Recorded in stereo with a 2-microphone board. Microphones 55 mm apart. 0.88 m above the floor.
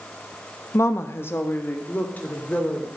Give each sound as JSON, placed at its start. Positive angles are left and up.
{"t": 0.7, "sound": "a woman speaking", "side_deg": 50, "distance_m": 1.0}